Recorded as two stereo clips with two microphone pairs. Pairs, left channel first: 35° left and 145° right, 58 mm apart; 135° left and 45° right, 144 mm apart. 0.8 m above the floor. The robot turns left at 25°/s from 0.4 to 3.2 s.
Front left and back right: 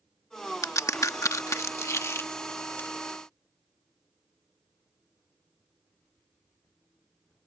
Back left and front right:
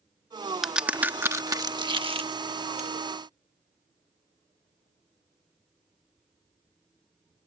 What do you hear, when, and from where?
0.6 s a crack: 45° left; by 2.9 s 15° right